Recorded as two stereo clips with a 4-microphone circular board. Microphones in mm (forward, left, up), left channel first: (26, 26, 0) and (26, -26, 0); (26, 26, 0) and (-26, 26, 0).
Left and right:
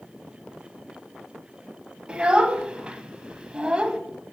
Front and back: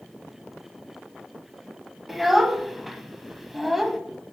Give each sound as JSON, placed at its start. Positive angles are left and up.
{"t": 2.1, "sound": "a child speaking", "azimuth_deg": -100, "distance_m": 0.5}